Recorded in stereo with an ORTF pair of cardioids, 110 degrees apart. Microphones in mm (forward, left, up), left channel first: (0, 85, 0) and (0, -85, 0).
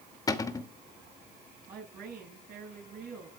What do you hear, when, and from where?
0.3 s a cupboard door: 20° left, 1.2 m
1.7 s a woman speaking: 65° right, 7.5 m